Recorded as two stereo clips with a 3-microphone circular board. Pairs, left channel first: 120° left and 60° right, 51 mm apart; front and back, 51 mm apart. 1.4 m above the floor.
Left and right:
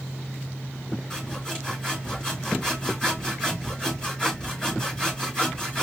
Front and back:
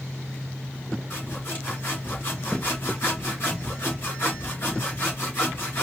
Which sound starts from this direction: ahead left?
Sawing, at 1.1 s.